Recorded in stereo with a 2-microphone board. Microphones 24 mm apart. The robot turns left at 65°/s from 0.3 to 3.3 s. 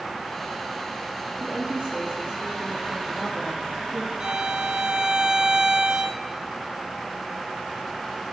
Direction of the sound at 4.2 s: 40° right (ahead or behind).